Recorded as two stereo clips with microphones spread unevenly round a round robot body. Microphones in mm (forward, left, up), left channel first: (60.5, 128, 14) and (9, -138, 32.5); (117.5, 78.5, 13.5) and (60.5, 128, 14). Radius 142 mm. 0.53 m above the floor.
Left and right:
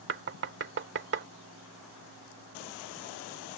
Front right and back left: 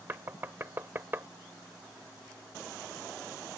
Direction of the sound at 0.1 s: 150° right.